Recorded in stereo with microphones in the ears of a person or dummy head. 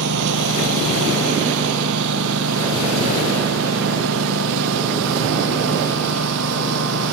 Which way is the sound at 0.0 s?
70° right (ahead or behind).